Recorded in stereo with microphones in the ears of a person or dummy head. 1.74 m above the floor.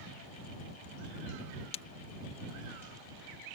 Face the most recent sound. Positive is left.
turn(degrees=30)  # may be behind; listen again after turning